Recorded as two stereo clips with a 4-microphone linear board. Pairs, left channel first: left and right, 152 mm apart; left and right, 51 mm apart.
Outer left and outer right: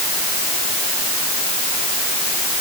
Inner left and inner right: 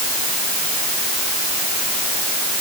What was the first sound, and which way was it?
Only background noise.